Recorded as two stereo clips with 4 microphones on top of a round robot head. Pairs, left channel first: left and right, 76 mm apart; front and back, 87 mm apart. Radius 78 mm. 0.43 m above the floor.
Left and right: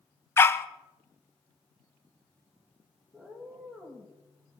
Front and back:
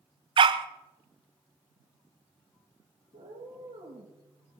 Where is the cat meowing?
175° left, 5.5 m.